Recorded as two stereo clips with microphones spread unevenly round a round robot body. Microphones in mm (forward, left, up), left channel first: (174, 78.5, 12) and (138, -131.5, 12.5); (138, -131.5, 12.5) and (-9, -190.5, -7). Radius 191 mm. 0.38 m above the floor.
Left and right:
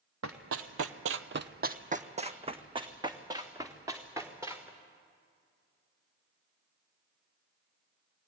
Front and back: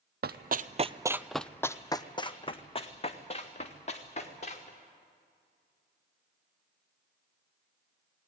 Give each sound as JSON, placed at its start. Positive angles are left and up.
{"t": 0.2, "sound": "running footsteps", "azimuth_deg": -140, "distance_m": 1.0}